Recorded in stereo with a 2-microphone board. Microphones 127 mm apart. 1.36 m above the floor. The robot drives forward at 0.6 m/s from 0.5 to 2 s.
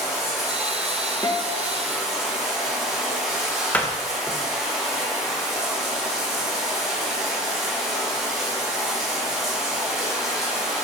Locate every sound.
0.0 s running water: centre (ahead or behind), 2.5 m
1.2 s a guitar: 35° left (ahead or behind), 0.9 m; by 1.7 s 30° left (ahead or behind), 1.1 m
3.7 s a door slam: 10° left (ahead or behind), 0.6 m